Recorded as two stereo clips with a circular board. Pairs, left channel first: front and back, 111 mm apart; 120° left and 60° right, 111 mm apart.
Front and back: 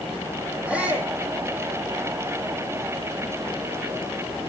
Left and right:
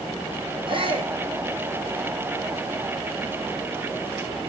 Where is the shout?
100° right, 8 m.